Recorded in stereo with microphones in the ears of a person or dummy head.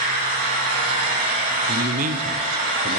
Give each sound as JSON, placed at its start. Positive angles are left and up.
{"t": 0.0, "sound": "an engine running", "side_deg": -50, "distance_m": 3.5}
{"t": 1.7, "sound": "a man speaking", "side_deg": -50, "distance_m": 0.8}